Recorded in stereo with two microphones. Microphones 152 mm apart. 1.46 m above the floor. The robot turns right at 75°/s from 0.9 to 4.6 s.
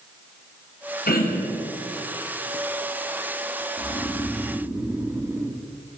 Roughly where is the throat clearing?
Left.